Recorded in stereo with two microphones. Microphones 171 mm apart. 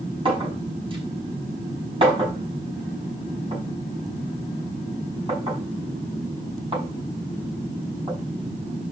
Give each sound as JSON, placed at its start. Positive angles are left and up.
{"t": 0.2, "sound": "a clink", "side_deg": -30, "distance_m": 5.5}